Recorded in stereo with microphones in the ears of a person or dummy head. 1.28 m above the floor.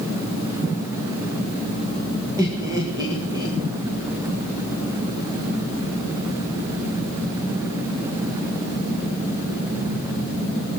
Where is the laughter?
20° right (ahead or behind), 2.0 m.